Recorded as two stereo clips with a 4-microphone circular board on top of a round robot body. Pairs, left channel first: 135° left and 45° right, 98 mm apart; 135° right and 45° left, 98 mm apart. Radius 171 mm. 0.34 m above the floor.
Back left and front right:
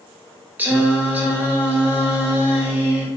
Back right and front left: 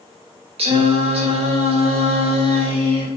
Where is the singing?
25° left, 0.6 m.